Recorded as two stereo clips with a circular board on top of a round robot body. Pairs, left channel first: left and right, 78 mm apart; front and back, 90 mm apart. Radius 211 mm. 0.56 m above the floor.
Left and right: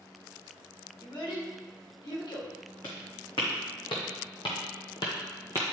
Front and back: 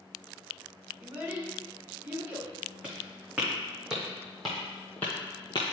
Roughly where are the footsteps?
Left.